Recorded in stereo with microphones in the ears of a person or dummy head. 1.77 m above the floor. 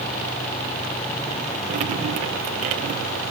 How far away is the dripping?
About 1.0 m.